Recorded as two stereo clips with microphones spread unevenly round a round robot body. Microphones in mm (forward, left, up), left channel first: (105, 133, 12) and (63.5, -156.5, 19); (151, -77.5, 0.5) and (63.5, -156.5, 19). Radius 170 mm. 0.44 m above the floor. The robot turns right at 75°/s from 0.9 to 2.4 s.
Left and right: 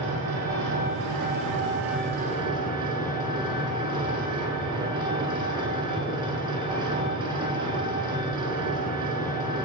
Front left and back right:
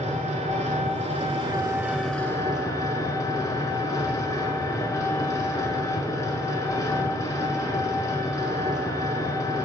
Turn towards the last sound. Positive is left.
turn(degrees=-25)